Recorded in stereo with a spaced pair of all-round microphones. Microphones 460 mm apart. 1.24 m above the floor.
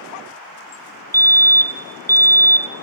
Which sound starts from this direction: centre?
A fire alarm, at 1.1 s.